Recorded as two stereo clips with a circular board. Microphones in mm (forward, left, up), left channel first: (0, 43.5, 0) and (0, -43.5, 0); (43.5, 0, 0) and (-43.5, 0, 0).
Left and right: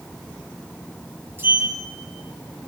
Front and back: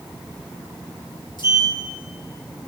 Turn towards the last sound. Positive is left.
turn(degrees=-25)